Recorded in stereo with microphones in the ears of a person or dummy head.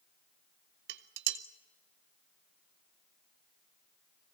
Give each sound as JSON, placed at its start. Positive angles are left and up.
{"t": 0.9, "sound": "dishes clattering", "side_deg": -60, "distance_m": 1.0}